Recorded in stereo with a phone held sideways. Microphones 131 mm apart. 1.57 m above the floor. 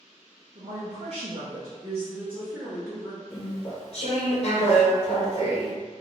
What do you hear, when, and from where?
0.6 s a woman speaking: 55° right (ahead or behind), 0.7 m; by 3.2 s 5° left (ahead or behind), 1.3 m
3.3 s chewing: 50° left (ahead or behind), 0.9 m